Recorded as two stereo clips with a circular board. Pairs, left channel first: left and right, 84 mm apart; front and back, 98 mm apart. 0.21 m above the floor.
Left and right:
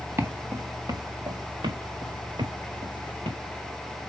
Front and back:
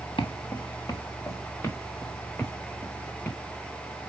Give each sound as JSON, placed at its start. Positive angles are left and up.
{"t": 0.2, "sound": "footsteps", "azimuth_deg": -30, "distance_m": 2.0}